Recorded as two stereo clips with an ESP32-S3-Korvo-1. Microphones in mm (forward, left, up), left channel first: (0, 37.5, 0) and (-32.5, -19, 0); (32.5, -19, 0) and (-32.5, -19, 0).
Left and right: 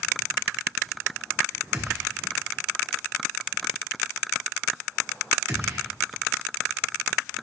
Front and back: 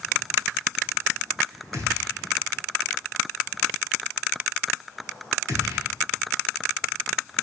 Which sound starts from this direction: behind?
A gunshot, at 1.7 s.